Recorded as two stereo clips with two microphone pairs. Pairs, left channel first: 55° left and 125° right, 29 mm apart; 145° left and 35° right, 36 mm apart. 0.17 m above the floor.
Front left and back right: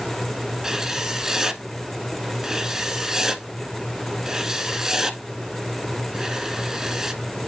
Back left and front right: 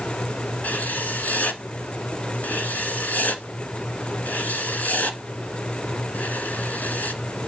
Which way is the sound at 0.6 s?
170° left.